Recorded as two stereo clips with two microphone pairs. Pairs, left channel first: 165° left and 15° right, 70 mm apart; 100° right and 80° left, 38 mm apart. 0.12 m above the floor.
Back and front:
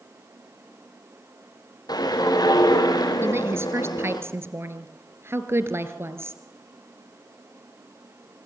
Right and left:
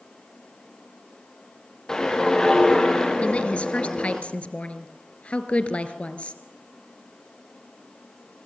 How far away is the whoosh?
About 3.5 m.